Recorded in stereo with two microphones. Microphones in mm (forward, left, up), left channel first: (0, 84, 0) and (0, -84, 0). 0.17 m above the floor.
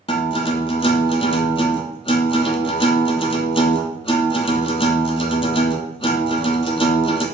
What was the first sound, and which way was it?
A guitar, 35° left (ahead or behind).